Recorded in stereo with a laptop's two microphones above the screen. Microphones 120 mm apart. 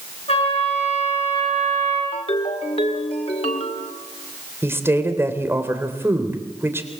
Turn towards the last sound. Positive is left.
turn(degrees=-20)  # may be behind; listen again after turning